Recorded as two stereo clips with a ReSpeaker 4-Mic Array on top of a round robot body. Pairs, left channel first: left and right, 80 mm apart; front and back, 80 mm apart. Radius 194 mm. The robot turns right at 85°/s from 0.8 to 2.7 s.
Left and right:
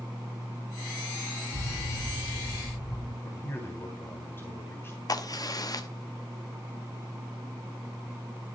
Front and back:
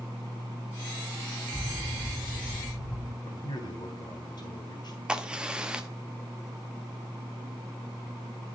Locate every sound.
1.5 s an explosion: 90° right, 5 m; by 3.1 s 10° left, 5 m
3.2 s a man speaking: 25° left, 3.5 m
5.1 s a crack: 105° left, 1.8 m